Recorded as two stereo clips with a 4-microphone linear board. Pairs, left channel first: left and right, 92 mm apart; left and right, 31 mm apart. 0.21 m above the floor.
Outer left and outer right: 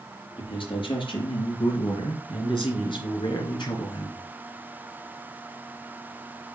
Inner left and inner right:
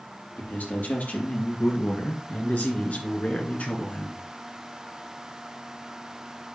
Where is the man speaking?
65° left (ahead or behind), 4.5 m; by 4.2 s 55° left (ahead or behind), 2.5 m.